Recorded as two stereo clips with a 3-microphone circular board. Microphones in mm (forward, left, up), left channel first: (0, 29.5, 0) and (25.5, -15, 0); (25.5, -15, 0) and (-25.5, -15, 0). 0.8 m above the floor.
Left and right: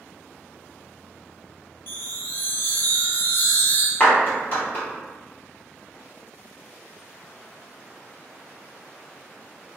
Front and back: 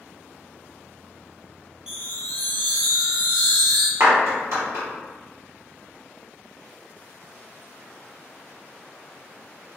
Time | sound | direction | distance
1.9 | a chime | 110° left | 0.7 m
4.0 | a clap | 170° left | 1.5 m